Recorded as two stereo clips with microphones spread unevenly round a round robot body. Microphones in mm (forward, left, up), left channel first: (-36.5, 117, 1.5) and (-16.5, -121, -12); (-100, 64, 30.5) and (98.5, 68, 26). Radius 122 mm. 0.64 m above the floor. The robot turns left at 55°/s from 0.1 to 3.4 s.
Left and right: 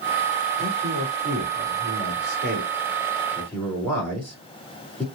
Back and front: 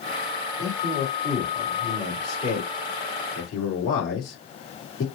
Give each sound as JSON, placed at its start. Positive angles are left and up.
{"t": 0.6, "sound": "a man speaking", "azimuth_deg": -25, "distance_m": 2.5}